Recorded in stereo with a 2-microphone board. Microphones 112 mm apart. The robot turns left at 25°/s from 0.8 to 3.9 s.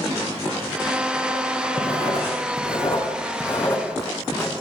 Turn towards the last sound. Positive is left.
turn(degrees=35)  # may be behind; listen again after turning